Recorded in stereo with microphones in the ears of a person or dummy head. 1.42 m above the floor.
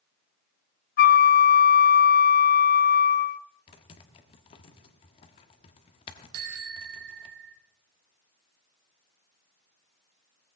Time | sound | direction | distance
1.0 | a flute | 50° left (ahead or behind) | 0.5 m
3.7 | typing on a keyboard | 30° left (ahead or behind) | 1.2 m
6.3 | a bicycle bell | 70° right (ahead or behind) | 2.5 m